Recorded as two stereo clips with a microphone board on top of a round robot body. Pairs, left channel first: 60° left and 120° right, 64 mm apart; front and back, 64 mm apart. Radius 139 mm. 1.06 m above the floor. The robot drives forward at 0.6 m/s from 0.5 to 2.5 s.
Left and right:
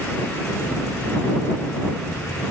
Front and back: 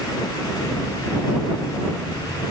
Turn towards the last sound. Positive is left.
No sound to turn to.